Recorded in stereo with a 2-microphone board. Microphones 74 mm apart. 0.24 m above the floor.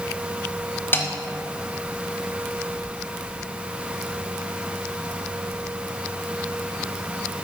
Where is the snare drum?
25° left (ahead or behind), 0.9 m.